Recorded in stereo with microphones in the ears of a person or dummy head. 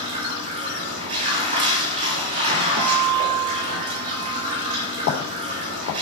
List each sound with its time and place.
0.0 s running water: 35° right (ahead or behind), 1.2 m
2.8 s a guitar: 70° right (ahead or behind), 0.7 m
5.0 s footsteps: 65° left (ahead or behind), 3.5 m